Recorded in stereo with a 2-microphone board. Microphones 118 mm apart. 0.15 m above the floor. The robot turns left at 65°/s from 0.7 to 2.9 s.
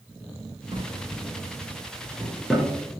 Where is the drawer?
50° right (ahead or behind), 0.6 m; by 2.7 s 10° left (ahead or behind), 0.6 m.